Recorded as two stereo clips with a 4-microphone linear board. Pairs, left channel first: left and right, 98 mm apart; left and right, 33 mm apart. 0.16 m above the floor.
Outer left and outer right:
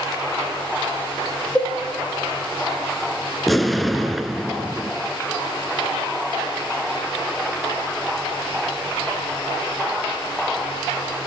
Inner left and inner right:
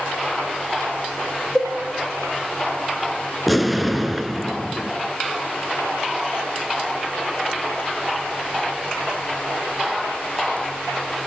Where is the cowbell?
10° left (ahead or behind), 6 m.